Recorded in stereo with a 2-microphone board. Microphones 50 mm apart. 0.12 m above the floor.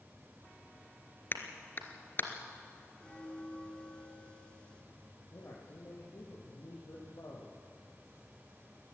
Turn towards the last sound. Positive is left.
turn(degrees=65)  # may be behind; listen again after turning